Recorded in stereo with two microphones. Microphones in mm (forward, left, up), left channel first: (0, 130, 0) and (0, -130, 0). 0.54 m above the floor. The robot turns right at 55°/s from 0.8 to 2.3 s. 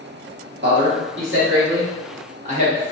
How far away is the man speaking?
About 1.3 m.